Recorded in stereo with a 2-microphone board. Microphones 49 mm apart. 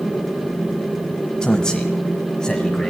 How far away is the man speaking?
About 1.0 m.